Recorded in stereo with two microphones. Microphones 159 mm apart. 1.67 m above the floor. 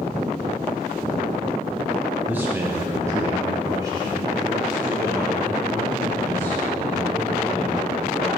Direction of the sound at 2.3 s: 10° right (ahead or behind).